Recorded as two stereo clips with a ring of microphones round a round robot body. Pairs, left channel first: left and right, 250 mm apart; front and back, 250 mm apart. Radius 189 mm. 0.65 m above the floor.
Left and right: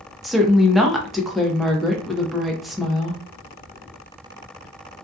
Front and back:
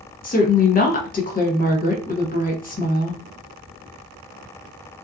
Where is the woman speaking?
Straight ahead, 0.9 m.